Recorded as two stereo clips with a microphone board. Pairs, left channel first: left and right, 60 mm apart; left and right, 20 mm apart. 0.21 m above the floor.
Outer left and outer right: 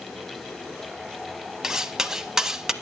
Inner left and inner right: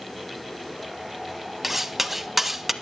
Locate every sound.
1.6 s cutlery clinking: 10° right (ahead or behind), 0.7 m